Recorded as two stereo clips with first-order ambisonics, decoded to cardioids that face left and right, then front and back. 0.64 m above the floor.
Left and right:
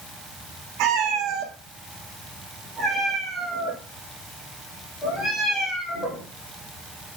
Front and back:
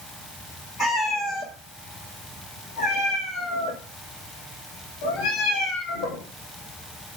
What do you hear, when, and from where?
0.8 s a cat meowing: 75° right, 1.4 m; by 6.2 s 25° left, 4 m